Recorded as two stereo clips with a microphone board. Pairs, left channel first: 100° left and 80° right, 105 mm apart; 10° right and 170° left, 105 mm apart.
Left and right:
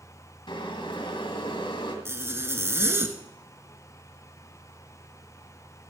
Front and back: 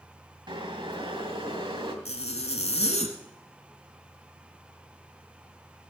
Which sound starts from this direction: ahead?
A zipper, at 2.0 s.